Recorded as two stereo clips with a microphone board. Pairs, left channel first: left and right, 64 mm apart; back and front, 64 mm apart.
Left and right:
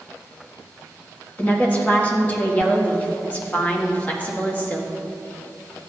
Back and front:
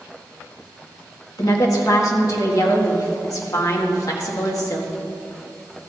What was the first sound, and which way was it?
A woman speaking, 155° left.